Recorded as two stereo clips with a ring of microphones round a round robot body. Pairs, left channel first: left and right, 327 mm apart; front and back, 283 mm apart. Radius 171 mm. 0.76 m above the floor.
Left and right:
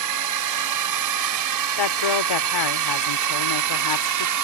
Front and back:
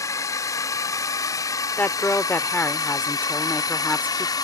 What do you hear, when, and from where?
0.0 s a drone: 80° right; by 4.5 s 75° right
1.8 s a woman speaking: 85° left